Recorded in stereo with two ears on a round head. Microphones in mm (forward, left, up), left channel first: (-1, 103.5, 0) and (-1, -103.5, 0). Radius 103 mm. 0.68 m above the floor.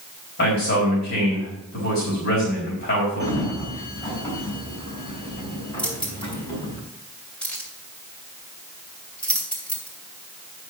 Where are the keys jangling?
5° left (ahead or behind), 3 m.